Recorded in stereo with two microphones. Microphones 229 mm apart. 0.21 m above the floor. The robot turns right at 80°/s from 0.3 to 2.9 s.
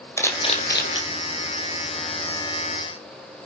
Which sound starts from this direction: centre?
A camera shutter, at 0.2 s.